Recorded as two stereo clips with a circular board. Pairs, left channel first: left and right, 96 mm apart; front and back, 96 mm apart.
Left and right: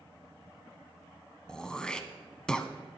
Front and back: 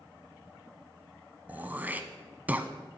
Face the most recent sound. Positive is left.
turn(degrees=155)